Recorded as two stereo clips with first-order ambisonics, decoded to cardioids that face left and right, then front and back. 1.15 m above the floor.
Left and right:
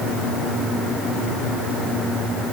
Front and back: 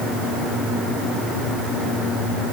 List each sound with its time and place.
Only background noise.